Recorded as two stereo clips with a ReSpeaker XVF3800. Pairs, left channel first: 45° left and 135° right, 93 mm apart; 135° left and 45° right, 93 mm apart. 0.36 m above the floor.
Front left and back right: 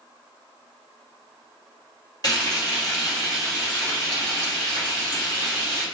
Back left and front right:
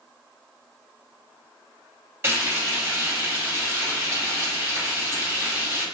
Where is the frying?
15° left, 1.9 m.